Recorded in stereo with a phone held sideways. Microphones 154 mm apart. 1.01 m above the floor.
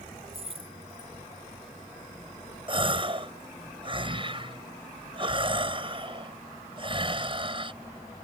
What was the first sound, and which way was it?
Keys jangling, 40° right (ahead or behind).